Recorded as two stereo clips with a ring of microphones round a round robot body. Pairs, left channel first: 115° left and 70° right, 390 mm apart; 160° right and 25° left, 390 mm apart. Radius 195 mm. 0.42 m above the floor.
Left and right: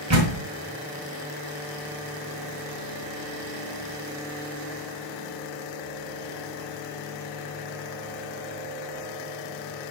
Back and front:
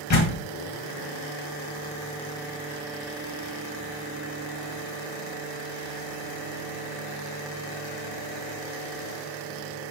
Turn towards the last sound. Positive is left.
turn(degrees=-110)